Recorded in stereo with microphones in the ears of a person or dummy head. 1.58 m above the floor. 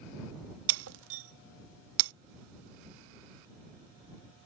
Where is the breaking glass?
70° right (ahead or behind).